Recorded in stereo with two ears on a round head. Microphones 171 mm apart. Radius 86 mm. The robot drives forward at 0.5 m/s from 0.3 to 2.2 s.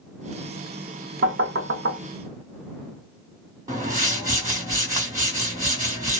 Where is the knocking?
55° right (ahead or behind), 1.0 m; by 2.0 s 70° right (ahead or behind), 0.9 m.